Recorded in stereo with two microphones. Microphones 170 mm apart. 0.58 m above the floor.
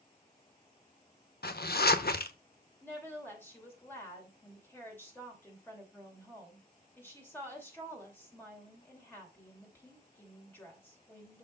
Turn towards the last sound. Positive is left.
turn(degrees=10)  # may be behind; listen again after turning